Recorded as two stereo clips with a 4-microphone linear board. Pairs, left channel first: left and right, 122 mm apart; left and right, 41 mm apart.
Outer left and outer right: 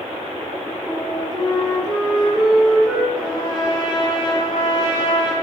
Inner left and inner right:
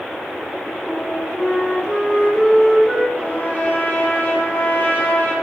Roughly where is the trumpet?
Left.